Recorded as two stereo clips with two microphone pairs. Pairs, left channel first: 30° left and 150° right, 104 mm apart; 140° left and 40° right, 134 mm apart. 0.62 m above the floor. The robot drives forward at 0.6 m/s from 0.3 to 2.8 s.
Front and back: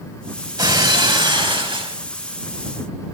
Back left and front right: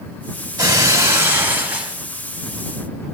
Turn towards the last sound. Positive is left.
turn(degrees=-130)